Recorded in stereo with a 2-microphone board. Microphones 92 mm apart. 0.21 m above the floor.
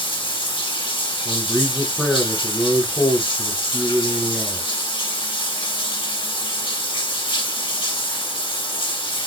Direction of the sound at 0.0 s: 65° left (ahead or behind).